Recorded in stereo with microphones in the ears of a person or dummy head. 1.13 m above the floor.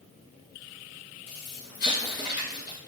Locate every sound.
1.3 s an explosion: 50° left (ahead or behind), 1.5 m